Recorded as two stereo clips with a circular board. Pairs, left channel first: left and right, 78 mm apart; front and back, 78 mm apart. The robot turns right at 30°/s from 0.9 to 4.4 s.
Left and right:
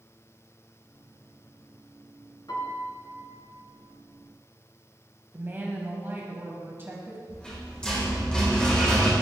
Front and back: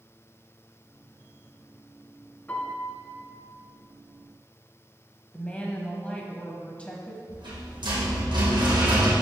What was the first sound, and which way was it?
A piano, 65° left.